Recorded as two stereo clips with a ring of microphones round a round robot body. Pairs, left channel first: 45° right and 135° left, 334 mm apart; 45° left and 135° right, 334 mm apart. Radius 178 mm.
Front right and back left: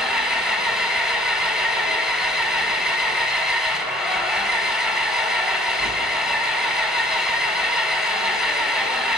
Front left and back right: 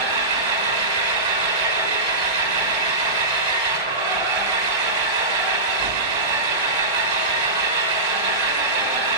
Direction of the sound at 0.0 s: 135° right.